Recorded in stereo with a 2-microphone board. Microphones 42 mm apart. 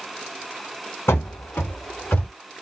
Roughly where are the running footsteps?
Left.